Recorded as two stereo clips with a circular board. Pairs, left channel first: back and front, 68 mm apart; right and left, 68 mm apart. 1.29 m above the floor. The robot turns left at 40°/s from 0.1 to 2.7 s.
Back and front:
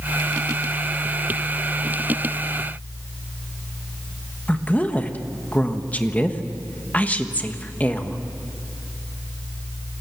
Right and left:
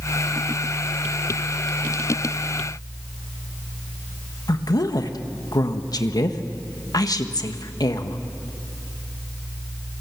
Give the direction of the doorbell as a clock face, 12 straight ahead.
No doorbell in this recording.